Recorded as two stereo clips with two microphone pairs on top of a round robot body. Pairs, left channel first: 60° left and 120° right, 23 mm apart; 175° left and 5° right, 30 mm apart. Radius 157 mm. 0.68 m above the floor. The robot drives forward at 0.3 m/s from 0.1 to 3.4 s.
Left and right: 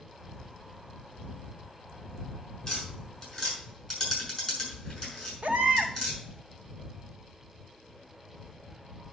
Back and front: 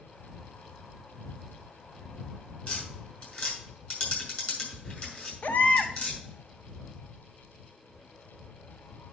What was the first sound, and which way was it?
Tapping, 135° left.